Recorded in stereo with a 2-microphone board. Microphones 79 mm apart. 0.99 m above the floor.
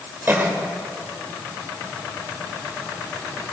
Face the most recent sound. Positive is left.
turn(degrees=-30)  # may be behind; listen again after turning